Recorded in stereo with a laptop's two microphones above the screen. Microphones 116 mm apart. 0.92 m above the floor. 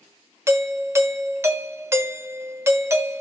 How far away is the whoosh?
I don't hear a whoosh.